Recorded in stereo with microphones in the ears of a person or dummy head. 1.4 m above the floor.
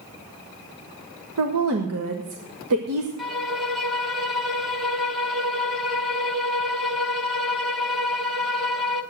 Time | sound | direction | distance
1.4 | a woman speaking | 80° right | 1.7 m
3.2 | a violin | centre (ahead or behind) | 0.9 m